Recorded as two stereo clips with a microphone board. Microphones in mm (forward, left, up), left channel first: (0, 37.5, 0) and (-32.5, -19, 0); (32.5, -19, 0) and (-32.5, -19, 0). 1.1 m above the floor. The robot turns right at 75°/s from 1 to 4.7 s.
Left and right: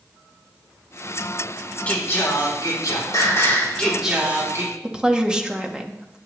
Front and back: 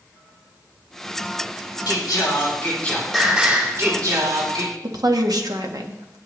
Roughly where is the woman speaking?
Behind.